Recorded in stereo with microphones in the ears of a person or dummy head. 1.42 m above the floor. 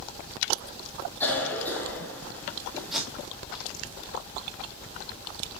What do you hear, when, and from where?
1.2 s a cough: 10° left (ahead or behind), 3 m
2.9 s tape being pulled: centre (ahead or behind), 2 m